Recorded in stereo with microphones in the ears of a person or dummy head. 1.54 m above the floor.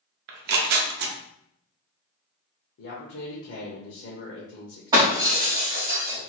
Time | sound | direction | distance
0.3 | tearing paper | 60° right (ahead or behind) | 0.5 m
2.8 | a man speaking | 55° left (ahead or behind) | 0.9 m
4.9 | breaking glass | 20° right (ahead or behind) | 1.6 m